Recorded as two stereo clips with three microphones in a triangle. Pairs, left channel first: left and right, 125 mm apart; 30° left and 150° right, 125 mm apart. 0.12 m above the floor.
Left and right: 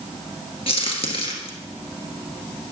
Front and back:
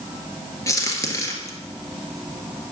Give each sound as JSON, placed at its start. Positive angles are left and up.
{"t": 0.7, "sound": "a crack", "azimuth_deg": 85, "distance_m": 1.5}